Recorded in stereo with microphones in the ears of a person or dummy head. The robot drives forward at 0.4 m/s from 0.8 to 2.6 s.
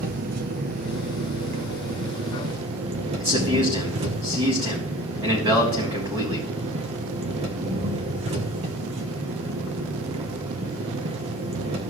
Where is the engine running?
50° right (ahead or behind), 1.0 m; by 11.9 s 40° right (ahead or behind), 1.2 m.